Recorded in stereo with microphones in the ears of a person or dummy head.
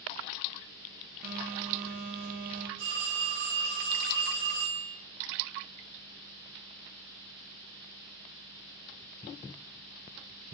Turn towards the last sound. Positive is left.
turn(degrees=-60)  # may be behind; listen again after turning